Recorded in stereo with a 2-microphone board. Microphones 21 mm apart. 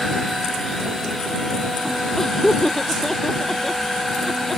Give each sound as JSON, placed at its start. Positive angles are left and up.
{"t": 2.2, "sound": "laughter", "side_deg": 15}